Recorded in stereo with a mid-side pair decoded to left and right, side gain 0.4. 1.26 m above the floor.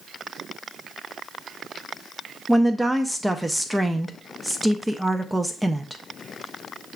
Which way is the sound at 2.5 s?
5° right.